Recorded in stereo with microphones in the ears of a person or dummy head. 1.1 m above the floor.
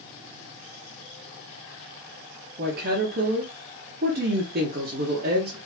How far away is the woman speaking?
About 0.9 m.